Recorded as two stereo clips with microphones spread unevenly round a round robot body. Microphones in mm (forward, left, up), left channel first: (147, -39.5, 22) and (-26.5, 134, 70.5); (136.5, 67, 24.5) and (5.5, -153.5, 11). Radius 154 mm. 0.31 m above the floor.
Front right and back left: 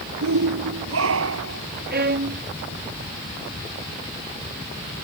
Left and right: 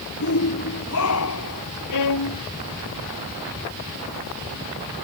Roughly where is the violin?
Left.